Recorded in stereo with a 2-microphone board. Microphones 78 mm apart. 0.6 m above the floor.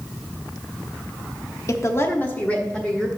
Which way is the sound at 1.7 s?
40° left (ahead or behind).